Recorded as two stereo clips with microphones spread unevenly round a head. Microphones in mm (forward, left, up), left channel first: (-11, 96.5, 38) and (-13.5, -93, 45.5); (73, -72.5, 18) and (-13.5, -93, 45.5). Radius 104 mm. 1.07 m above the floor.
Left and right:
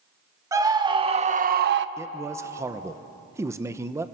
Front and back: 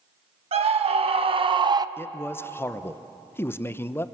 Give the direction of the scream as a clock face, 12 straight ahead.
6 o'clock.